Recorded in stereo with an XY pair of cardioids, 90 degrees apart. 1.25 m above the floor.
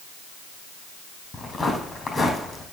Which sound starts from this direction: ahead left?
Footsteps, at 1.3 s.